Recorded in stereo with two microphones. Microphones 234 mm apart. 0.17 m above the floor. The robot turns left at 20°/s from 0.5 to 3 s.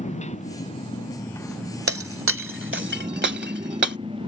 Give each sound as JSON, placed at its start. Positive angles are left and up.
{"t": 0.0, "sound": "a motorcycle", "azimuth_deg": 30}
{"t": 1.9, "sound": "breaking glass", "side_deg": -70}